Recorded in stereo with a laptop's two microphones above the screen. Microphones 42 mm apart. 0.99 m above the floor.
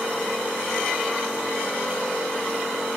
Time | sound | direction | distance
0.0 | a machine running | 15° left (ahead or behind) | 4 m